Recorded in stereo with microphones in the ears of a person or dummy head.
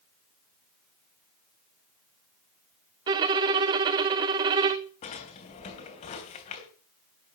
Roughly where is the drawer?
Left.